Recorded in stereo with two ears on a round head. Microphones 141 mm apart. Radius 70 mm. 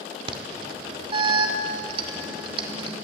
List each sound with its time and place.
0.3 s an alarm: 35° right (ahead or behind), 2.5 m